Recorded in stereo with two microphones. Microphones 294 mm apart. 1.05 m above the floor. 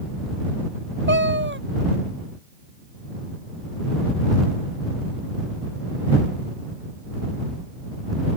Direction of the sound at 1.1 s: 40° right (ahead or behind).